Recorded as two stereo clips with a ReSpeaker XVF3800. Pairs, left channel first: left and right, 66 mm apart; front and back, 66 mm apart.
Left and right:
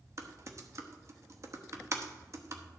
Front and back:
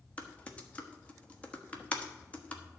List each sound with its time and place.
0.2 s typing on a keyboard: 65° right, 1.3 m